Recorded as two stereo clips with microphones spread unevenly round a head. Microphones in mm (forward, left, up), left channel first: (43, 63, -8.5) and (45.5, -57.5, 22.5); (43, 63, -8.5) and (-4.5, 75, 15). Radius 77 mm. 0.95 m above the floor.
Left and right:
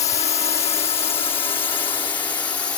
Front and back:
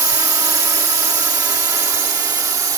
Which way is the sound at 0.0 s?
145° left.